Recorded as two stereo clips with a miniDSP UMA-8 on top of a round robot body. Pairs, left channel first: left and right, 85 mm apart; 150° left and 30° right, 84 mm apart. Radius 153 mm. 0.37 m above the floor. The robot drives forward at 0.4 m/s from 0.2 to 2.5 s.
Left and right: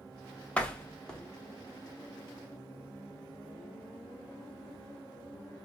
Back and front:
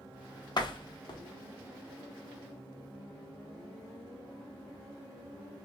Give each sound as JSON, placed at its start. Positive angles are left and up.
{"t": 0.6, "sound": "a door slam", "azimuth_deg": 165, "distance_m": 0.7}